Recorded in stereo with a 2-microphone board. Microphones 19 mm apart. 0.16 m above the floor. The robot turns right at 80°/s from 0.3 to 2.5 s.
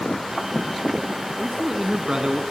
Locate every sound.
1.4 s a man speaking: 160° right, 1.6 m; by 2.4 s 80° right, 1.6 m